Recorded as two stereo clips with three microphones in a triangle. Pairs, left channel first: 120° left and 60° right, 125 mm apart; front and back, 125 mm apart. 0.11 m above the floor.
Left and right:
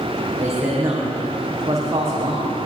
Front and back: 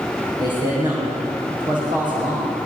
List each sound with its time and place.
0.4 s a man speaking: 125° right, 5.5 m